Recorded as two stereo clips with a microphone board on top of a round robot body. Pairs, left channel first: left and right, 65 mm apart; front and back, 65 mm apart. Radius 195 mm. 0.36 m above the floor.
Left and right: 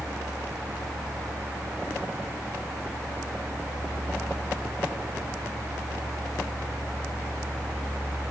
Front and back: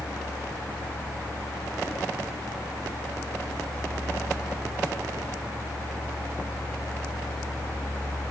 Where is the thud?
No thud in this recording.